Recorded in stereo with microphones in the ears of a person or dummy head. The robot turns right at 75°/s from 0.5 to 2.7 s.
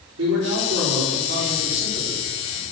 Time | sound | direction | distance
0.2 | a man speaking | 100° right | 4.5 m